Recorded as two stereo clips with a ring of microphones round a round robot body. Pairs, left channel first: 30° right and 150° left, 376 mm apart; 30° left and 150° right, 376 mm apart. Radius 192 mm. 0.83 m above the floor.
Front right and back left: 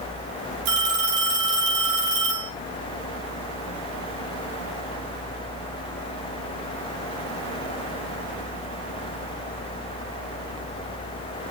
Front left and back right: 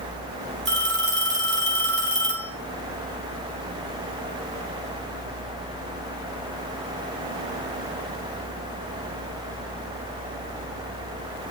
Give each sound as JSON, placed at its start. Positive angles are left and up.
{"t": 0.7, "sound": "a phone ringing", "azimuth_deg": 150, "distance_m": 5.0}